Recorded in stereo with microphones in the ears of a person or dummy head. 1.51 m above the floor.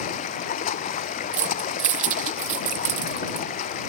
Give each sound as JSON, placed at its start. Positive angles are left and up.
{"t": 0.0, "sound": "running water", "side_deg": 40}
{"t": 1.3, "sound": "keys jangling", "side_deg": -40}